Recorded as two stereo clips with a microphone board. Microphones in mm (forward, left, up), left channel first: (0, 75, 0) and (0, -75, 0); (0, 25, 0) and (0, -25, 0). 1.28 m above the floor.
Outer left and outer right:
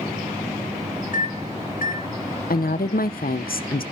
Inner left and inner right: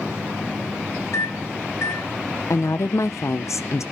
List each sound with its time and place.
1.1 s a microwave: 60° left (ahead or behind), 1.4 m
2.5 s a woman speaking: 75° left (ahead or behind), 0.7 m